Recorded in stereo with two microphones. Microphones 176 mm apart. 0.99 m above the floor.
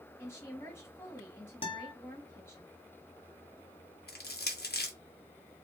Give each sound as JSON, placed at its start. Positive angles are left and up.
{"t": 0.2, "sound": "a woman speaking", "side_deg": 15, "distance_m": 1.5}
{"t": 1.6, "sound": "a guitar", "side_deg": 30, "distance_m": 0.9}
{"t": 4.1, "sound": "crushing", "side_deg": 70, "distance_m": 0.6}